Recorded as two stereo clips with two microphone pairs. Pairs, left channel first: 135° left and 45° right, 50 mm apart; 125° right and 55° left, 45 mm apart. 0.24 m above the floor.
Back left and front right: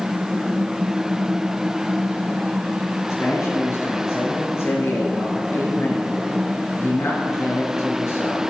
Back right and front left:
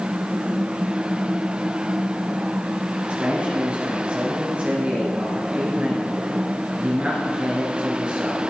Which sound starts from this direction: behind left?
A man speaking, at 3.1 s.